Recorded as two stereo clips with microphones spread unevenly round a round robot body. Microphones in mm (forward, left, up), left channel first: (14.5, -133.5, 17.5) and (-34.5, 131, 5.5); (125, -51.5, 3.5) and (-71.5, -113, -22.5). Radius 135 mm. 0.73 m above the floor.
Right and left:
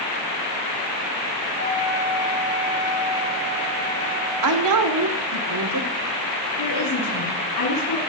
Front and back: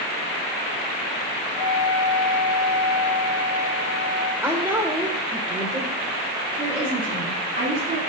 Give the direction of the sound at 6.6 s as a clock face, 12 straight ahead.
3 o'clock.